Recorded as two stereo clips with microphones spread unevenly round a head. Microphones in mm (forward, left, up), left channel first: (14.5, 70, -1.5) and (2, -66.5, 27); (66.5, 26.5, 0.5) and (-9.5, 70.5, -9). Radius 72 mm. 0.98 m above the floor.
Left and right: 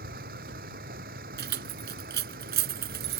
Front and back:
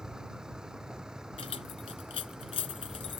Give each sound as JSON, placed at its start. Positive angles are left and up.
{"t": 0.0, "sound": "a vehicle", "azimuth_deg": -125}
{"t": 1.4, "sound": "keys jangling", "azimuth_deg": -85}